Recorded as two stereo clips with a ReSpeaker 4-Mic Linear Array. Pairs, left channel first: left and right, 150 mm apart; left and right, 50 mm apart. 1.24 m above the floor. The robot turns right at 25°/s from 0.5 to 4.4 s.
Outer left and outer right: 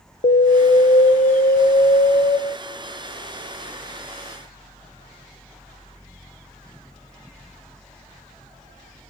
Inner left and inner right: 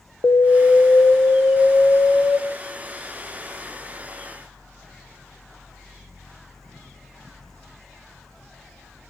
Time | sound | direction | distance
0.2 | an alarm | 105° left | 0.6 m